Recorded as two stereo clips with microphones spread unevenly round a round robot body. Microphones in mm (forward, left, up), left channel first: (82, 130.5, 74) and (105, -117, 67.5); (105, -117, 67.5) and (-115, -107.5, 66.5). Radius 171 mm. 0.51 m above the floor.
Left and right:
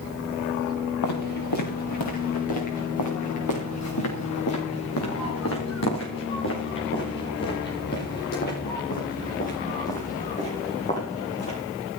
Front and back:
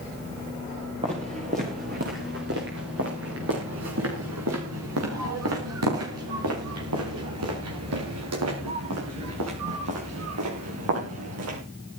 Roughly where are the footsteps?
Left.